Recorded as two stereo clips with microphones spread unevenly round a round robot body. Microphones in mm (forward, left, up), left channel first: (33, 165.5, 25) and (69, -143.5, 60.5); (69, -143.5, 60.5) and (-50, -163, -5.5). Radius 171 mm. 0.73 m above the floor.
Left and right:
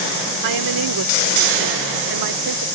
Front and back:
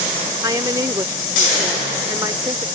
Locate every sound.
0.4 s a woman speaking: 115° right